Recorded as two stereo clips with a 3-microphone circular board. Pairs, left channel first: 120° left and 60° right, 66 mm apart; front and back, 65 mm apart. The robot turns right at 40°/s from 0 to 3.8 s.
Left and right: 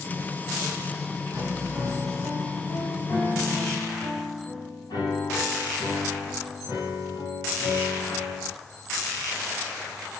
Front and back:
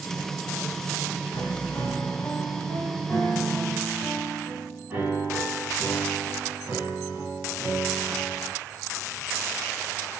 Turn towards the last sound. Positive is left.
turn(degrees=115)